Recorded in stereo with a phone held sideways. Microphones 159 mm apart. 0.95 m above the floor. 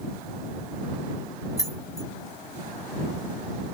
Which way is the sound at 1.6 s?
20° left (ahead or behind).